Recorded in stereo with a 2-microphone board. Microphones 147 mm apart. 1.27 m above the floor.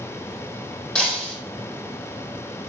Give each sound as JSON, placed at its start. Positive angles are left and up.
{"t": 0.9, "sound": "breaking glass", "side_deg": 5, "distance_m": 3.5}